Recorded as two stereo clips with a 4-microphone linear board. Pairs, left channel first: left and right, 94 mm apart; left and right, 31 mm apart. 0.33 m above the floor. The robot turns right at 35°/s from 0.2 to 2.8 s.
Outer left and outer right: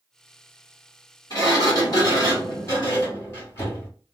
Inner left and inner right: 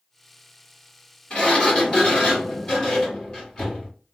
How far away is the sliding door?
About 1.9 m.